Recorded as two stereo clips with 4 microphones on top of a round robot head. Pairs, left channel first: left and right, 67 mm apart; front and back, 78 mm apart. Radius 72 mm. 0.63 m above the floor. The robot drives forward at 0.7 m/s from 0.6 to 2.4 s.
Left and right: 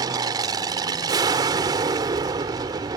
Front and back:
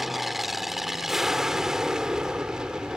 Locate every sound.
0.0 s an aircraft: 90° right; by 3.0 s 95° right